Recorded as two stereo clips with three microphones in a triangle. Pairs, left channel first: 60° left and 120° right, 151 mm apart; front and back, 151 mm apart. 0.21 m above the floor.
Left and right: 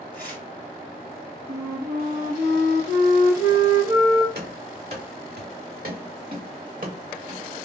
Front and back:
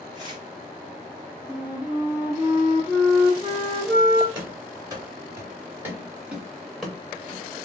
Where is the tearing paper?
120° right, 2.5 m.